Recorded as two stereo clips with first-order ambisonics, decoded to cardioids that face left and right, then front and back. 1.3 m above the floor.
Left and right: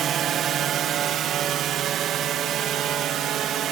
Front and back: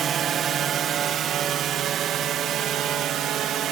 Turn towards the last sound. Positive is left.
turn(degrees=-135)